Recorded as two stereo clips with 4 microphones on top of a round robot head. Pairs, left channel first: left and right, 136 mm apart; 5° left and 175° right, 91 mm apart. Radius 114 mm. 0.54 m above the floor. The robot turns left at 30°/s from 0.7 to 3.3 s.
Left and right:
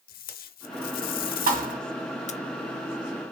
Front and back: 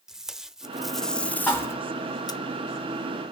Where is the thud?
75° right, 1.7 m; by 1.8 s 85° right, 1.7 m.